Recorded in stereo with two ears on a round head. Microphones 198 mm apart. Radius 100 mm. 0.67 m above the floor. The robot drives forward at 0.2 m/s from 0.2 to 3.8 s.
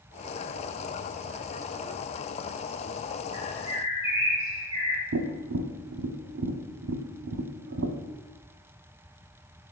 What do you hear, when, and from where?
3.3 s a bird: 15° right (ahead or behind), 1.8 m
5.1 s tapping: 65° right (ahead or behind), 0.6 m